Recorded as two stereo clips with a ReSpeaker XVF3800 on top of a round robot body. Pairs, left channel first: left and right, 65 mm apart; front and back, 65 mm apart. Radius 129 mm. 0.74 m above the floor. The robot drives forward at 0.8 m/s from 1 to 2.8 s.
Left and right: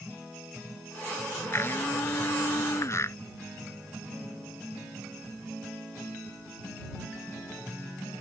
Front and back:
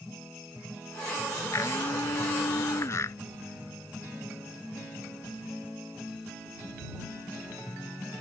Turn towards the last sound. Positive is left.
turn(degrees=45)